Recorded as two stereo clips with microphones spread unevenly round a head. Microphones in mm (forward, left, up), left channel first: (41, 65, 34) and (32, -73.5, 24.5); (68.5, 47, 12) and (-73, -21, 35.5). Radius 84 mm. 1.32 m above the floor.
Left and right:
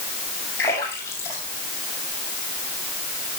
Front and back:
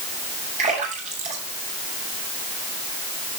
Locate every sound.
0.6 s a splash: 160° left, 7.5 m